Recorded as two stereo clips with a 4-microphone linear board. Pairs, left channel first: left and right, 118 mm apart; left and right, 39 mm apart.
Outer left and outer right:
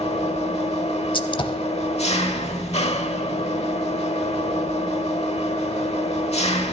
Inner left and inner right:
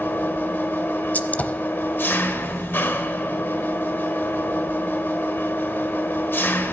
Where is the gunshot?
45° left (ahead or behind), 0.6 m.